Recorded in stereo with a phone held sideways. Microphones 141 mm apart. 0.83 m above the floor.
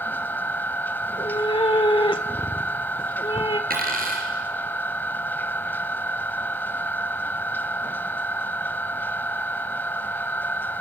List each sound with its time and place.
0.0 s a machine running: 15° left (ahead or behind), 0.8 m
1.0 s a cat meowing: 35° left (ahead or behind), 1.2 m
3.7 s a dropped coin: 75° right (ahead or behind), 5 m